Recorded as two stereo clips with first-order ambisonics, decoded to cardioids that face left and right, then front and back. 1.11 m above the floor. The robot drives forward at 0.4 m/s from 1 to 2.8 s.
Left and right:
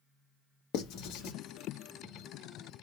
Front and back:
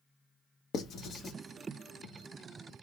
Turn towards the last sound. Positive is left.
turn(degrees=135)